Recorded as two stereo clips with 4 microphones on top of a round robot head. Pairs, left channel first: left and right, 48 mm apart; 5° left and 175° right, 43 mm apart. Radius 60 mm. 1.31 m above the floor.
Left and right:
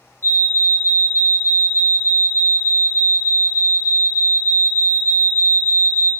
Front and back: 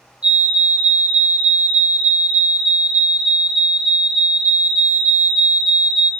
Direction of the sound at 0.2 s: 125° left.